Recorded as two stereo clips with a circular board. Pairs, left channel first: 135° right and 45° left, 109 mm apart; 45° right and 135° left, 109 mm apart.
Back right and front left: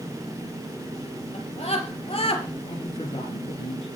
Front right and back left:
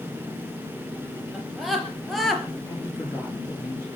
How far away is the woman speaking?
About 9.5 m.